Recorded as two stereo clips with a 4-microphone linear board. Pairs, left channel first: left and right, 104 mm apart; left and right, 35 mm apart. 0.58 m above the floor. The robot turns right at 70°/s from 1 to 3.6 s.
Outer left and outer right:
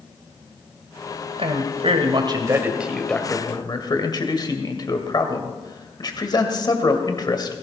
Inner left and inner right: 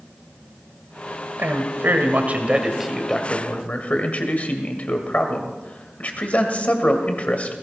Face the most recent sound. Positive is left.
turn(degrees=45)